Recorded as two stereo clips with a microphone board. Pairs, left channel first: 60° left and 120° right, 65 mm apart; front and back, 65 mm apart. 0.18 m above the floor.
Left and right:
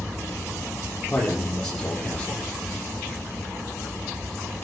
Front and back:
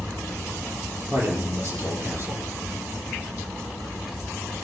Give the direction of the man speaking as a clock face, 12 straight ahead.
7 o'clock.